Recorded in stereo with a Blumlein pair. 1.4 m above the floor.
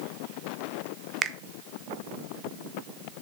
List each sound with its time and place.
1.2 s a finger snap: 20° right, 0.6 m